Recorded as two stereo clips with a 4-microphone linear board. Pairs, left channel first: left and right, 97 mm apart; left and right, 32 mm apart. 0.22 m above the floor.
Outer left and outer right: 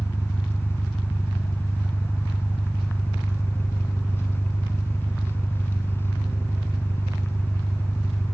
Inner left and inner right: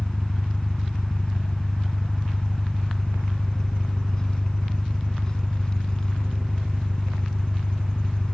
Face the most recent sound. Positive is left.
turn(degrees=25)  # may be behind; listen again after turning